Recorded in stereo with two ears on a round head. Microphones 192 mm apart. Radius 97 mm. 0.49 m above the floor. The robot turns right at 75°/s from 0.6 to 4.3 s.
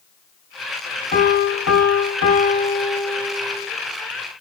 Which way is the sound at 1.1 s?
40° left.